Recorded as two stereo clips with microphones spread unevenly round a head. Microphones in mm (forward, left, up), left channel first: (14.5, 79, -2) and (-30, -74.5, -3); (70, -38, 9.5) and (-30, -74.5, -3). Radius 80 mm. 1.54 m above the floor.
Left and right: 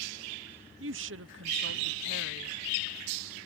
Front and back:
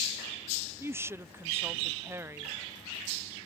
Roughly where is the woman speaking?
Right.